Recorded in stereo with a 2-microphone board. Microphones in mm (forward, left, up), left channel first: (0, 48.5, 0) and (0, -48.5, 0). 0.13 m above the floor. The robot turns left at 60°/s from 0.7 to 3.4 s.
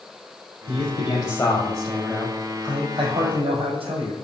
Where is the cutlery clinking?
I don't hear cutlery clinking.